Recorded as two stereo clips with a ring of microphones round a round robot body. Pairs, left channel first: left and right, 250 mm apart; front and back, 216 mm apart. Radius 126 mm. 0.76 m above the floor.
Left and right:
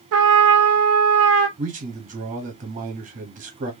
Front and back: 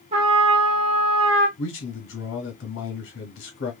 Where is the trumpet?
115° right, 0.7 m.